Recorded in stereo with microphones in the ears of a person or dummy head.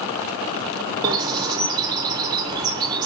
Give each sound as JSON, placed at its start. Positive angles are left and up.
{"t": 1.0, "sound": "a bird", "side_deg": -25, "distance_m": 0.6}